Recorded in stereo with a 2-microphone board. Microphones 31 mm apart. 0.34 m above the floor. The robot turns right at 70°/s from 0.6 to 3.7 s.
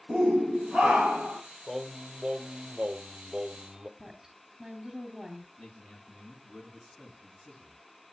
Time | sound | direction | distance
0.1 | a shout | 145° right | 2 m
1.7 | singing | 165° right | 1.0 m
4.0 | a woman speaking | 10° right (ahead or behind) | 2.5 m
5.6 | a man speaking | 35° left (ahead or behind) | 4.5 m